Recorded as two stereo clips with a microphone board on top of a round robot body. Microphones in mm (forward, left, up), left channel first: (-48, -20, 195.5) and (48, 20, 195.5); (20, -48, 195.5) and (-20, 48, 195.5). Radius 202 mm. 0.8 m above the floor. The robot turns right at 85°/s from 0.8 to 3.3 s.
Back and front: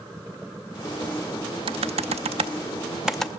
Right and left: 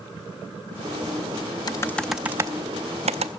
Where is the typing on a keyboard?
15° right, 0.6 m; by 3.3 s 125° left, 0.6 m.